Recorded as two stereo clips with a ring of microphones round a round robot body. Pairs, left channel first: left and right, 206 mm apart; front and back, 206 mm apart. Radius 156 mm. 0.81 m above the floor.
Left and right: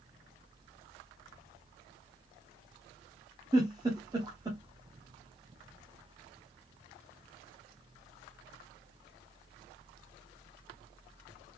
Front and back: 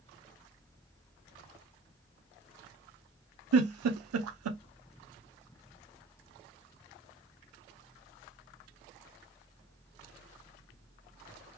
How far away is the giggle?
About 0.6 m.